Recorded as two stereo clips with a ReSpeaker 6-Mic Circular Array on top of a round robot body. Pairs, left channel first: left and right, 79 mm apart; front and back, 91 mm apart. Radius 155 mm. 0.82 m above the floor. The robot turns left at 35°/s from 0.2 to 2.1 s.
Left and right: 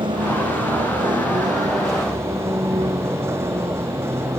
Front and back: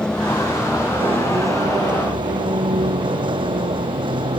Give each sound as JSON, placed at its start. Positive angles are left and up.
{"t": 0.0, "sound": "a vehicle", "azimuth_deg": -80}